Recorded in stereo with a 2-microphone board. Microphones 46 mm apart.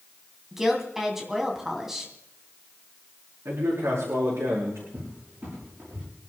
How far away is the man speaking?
About 6 m.